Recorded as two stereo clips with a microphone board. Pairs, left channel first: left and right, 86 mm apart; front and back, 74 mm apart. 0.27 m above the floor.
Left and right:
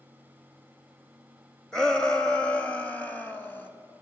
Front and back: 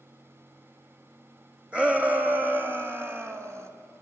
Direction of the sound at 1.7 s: 150° left.